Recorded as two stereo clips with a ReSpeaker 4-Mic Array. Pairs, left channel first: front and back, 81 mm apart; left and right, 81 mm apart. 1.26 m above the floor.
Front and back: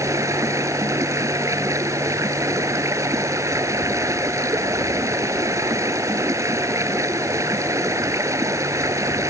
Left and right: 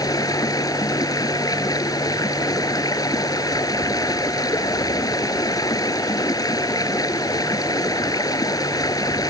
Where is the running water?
130° left.